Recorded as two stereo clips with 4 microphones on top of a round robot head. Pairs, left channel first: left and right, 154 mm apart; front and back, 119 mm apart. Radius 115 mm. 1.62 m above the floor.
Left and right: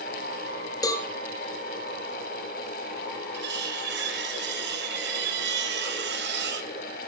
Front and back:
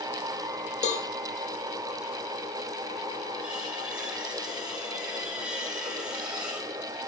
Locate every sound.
0.8 s a cowbell: 25° left, 3.5 m
3.3 s cutlery clinking: 95° right, 2 m